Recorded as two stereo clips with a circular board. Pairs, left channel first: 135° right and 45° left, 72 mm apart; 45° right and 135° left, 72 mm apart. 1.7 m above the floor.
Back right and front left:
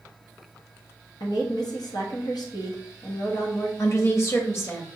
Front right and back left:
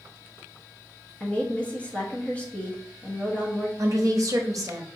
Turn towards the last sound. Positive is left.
turn(degrees=175)